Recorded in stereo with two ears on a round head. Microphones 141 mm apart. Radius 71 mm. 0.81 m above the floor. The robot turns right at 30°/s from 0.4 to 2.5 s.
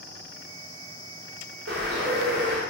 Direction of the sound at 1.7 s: 80° right.